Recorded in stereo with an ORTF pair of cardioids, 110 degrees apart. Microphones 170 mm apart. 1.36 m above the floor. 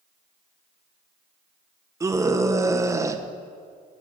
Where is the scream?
20° right, 1.0 m.